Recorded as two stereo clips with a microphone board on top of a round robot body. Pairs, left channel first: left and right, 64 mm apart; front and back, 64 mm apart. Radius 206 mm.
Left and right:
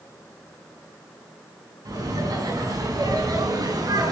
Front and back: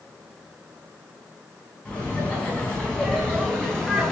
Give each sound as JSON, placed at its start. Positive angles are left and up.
{"t": 1.9, "sound": "laughter", "azimuth_deg": -70, "distance_m": 5.0}